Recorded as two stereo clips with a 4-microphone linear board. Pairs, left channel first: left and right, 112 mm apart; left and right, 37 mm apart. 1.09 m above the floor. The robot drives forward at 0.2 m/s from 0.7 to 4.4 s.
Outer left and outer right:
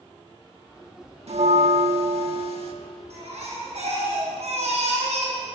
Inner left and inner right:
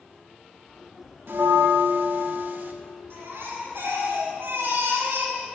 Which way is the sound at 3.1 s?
70° right (ahead or behind).